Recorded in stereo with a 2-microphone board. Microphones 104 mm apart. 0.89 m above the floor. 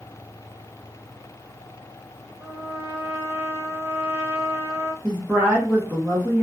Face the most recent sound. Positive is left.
turn(degrees=-10)  # may be behind; listen again after turning